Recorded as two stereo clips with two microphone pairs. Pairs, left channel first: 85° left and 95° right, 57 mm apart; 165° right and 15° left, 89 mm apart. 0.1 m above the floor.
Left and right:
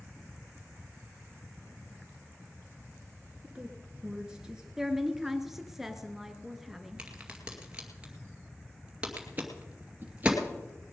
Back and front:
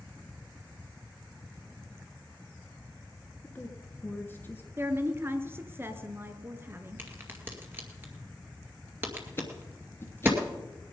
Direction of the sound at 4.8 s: 20° right.